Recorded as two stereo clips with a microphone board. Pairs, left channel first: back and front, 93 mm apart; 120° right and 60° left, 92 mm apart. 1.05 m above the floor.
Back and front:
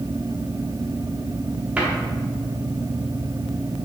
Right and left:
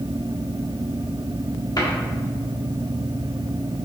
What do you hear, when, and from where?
1.8 s a cupboard door: 75° right, 1.3 m